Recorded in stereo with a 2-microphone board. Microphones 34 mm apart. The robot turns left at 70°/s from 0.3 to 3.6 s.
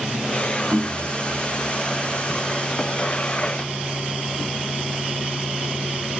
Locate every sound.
0.7 s knocking: 55° right (ahead or behind), 1.1 m; by 1.0 s 35° right (ahead or behind), 1.1 m